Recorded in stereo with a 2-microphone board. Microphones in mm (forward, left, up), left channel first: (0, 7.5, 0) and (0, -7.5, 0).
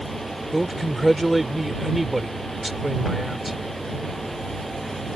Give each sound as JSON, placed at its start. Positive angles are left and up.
{"t": 0.5, "sound": "a man speaking", "side_deg": -5}